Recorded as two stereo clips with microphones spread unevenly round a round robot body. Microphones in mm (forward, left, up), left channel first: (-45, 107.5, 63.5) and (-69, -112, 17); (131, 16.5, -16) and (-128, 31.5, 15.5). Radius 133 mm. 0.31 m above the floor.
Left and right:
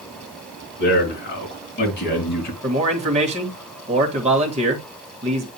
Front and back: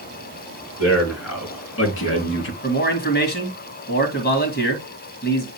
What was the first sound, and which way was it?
A man speaking, 35° left.